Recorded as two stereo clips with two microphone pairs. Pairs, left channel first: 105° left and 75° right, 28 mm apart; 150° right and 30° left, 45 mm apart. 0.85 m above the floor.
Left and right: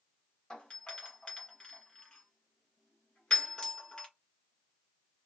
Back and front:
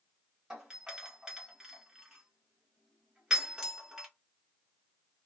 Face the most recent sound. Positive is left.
turn(degrees=95)